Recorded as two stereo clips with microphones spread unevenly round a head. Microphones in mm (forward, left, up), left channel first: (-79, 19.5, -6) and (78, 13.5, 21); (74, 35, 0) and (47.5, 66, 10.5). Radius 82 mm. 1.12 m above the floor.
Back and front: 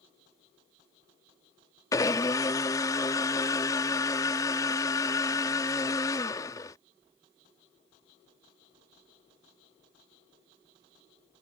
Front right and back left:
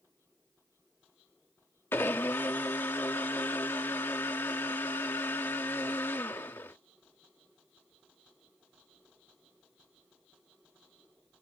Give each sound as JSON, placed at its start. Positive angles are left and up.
{"t": 1.9, "sound": "a blender", "azimuth_deg": -105}